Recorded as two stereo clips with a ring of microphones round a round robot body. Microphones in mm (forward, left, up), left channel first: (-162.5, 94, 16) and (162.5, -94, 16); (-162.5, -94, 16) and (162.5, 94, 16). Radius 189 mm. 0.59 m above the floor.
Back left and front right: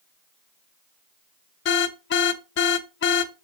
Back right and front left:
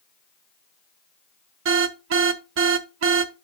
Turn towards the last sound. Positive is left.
turn(degrees=90)